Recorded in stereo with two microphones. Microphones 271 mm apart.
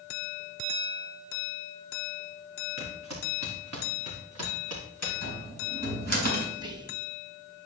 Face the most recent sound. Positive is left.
turn(degrees=-15)  # may be behind; listen again after turning